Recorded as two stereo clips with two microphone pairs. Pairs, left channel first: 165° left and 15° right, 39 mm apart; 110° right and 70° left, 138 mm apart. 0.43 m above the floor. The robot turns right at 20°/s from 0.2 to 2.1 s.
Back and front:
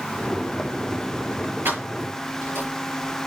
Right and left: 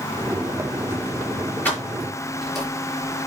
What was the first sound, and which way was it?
Keys jangling, 35° right.